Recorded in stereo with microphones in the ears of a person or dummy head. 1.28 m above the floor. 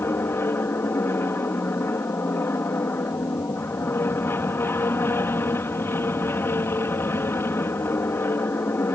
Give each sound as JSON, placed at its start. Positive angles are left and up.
{"t": 0.0, "sound": "an aircraft", "side_deg": 15}